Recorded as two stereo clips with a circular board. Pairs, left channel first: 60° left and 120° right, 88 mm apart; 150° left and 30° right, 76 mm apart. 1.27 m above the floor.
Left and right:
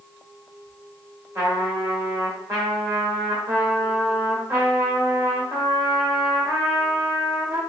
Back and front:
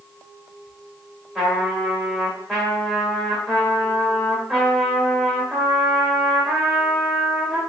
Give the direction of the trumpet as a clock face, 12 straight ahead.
4 o'clock.